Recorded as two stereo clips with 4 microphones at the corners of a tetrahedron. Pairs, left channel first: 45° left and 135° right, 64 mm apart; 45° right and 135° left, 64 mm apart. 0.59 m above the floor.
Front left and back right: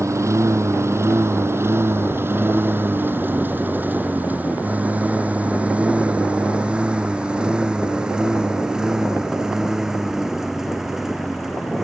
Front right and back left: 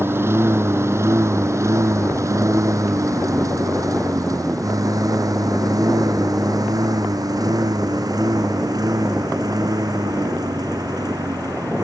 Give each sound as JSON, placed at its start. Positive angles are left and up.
{"t": 0.0, "sound": "a lawn mower", "azimuth_deg": -175}